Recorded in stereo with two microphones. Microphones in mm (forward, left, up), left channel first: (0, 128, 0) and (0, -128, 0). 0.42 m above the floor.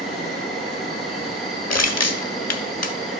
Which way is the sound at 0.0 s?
Centre (ahead or behind).